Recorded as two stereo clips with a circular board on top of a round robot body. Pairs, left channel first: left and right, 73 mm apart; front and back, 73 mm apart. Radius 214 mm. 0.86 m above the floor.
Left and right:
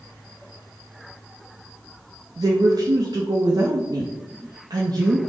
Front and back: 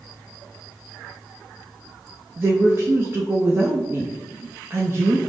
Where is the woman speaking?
120° right, 0.5 m.